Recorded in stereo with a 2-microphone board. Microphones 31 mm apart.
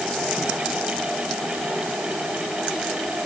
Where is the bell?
I don't hear a bell.